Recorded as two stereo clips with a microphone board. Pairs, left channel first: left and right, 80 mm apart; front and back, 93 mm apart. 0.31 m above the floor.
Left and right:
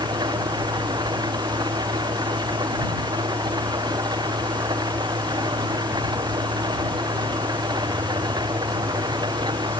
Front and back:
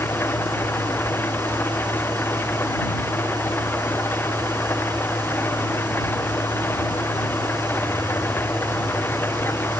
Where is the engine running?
65° right.